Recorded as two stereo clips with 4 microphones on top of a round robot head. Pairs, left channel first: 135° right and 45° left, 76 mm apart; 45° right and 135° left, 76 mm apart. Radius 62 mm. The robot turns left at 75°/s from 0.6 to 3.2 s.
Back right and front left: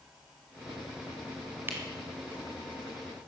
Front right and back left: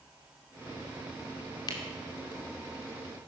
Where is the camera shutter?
15° right, 2.5 m; by 3.3 s 130° right, 2.5 m.